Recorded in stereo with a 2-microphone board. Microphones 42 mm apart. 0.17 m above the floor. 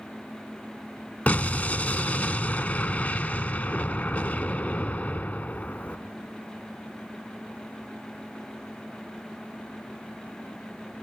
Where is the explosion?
35° left (ahead or behind), 0.5 m.